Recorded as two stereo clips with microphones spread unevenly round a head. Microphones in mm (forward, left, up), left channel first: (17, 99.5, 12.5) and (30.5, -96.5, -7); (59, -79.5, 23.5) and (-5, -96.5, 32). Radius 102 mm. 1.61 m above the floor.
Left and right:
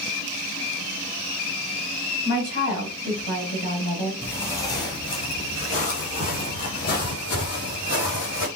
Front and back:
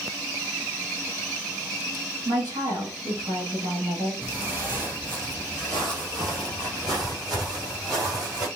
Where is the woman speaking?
135° left, 3 m.